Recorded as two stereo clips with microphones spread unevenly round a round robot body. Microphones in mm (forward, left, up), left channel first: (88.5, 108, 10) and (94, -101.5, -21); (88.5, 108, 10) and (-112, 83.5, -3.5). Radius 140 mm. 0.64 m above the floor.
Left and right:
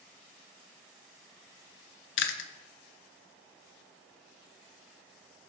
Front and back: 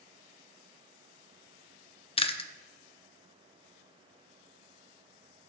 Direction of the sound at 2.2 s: 70° left.